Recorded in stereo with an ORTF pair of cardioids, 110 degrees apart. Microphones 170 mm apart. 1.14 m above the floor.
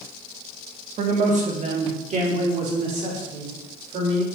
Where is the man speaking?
50° right, 1.8 m.